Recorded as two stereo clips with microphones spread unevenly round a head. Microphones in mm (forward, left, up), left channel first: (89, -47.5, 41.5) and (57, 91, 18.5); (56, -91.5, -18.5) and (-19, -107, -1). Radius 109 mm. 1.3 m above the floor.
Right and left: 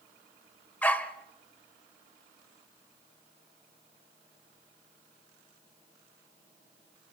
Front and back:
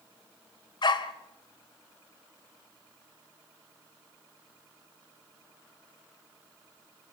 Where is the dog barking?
5° right, 1.6 m.